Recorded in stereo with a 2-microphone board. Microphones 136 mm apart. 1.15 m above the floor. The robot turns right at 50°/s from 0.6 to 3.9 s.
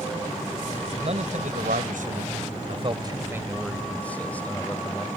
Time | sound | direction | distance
1.0 | a man speaking | 135° right | ?